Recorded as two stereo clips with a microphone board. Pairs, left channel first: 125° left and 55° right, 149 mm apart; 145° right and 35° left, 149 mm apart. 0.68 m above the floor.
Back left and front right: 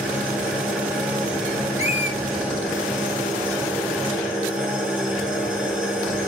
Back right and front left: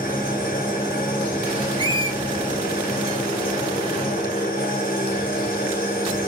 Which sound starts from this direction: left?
A squeak, at 1.8 s.